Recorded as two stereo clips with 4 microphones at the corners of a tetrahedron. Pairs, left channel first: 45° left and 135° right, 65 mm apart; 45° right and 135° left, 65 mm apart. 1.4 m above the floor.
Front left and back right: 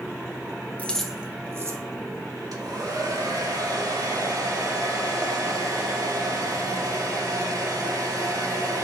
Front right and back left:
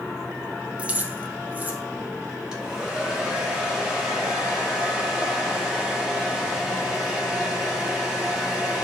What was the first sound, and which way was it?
Keys jangling, 85° left.